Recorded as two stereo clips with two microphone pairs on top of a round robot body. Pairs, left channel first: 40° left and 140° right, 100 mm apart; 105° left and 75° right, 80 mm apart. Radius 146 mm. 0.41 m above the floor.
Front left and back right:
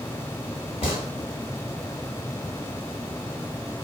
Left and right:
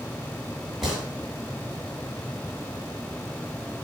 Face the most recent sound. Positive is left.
turn(degrees=10)